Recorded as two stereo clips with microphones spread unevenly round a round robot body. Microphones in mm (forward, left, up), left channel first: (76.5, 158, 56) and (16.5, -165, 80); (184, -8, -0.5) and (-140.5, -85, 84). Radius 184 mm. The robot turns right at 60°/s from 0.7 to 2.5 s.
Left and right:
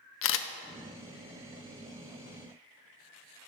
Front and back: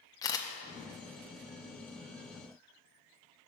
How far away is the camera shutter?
About 0.5 m.